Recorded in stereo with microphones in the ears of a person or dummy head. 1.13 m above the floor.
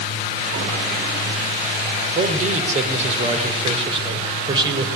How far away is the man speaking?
About 4 m.